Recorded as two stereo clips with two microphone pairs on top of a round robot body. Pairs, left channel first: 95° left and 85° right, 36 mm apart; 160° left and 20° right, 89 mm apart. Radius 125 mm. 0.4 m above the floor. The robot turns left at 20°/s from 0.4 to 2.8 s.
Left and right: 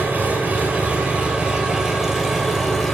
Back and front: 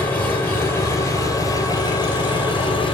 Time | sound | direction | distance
0.0 | an engine running | 130° right | 6.5 m